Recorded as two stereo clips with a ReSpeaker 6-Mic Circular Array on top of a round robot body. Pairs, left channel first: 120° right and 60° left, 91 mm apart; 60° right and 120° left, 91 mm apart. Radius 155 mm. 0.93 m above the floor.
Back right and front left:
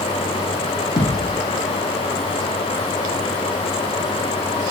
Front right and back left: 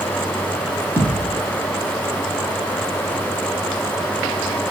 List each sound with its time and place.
1.0 s a thud: 170° right, 5 m